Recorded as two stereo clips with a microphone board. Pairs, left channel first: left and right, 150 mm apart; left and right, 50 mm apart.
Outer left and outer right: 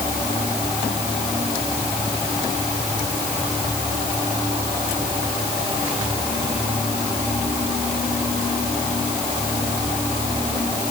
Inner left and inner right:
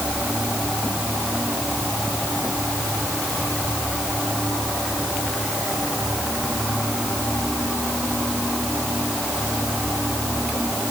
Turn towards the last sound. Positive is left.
No sound to turn to.